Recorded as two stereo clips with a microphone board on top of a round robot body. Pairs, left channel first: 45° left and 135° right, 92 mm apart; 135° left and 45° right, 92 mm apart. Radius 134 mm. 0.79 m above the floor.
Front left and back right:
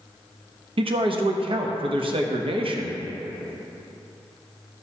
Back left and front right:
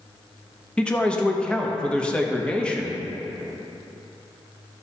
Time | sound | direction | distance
0.8 | a man speaking | 145° right | 0.9 m